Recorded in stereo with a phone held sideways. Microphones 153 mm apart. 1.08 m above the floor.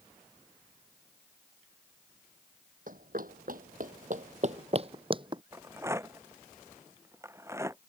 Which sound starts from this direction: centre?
A rattle, at 5.5 s.